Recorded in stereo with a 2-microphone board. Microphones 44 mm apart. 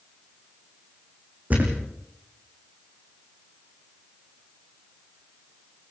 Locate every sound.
1.5 s a thud: 40° right (ahead or behind), 5 m